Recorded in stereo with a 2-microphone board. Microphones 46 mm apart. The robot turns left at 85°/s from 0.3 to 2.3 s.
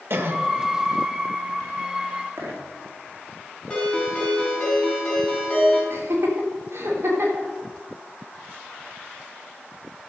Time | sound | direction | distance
0.1 | a cough | 60° right (ahead or behind) | 1.6 m
2.4 | a dropped coin | 65° right (ahead or behind) | 4 m
3.7 | a ringtone | 20° left (ahead or behind) | 5 m
5.9 | laughter | 70° right (ahead or behind) | 3.5 m